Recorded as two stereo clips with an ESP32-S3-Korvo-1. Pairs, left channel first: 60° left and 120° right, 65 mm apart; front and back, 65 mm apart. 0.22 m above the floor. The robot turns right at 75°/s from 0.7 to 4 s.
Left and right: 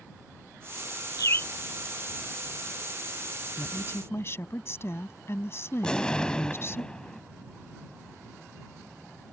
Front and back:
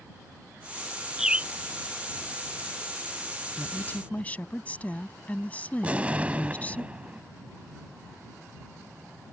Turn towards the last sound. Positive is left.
turn(degrees=130)